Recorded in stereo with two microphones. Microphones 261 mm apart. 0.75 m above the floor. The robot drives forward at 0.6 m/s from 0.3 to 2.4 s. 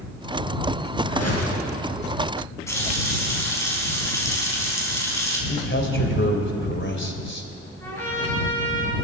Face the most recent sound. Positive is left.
turn(degrees=10)  # may be behind; listen again after turning